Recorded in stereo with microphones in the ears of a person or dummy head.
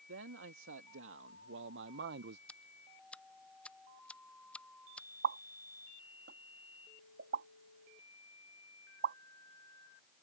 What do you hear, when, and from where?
0.1 s a man speaking: 80° right; by 2.4 s 60° right (ahead or behind)
2.5 s ticking: 5° left (ahead or behind)
5.2 s a pop: 55° right (ahead or behind)